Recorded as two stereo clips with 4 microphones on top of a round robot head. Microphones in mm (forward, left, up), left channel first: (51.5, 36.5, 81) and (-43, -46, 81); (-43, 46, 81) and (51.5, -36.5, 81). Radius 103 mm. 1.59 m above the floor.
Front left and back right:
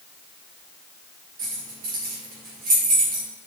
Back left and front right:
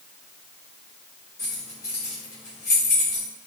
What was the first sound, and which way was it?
Keys jangling, 155° right.